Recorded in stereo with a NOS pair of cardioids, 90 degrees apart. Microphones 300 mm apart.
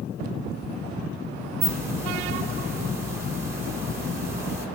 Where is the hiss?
10° right, 1.8 m.